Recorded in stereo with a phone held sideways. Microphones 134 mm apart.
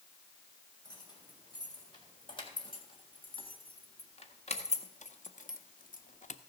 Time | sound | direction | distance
0.8 | keys jangling | 35° left (ahead or behind) | 3 m